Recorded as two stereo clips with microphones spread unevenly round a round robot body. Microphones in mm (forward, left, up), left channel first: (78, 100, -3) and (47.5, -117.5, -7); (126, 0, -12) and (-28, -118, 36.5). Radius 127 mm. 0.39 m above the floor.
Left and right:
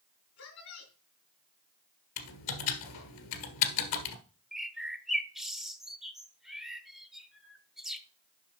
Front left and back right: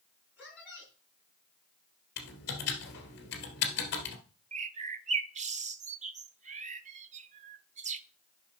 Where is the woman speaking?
130° left, 3 m.